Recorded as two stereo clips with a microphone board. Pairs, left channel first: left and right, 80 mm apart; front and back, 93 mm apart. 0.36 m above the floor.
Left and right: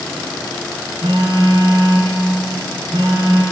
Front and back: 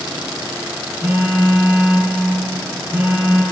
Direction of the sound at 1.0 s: 100° right.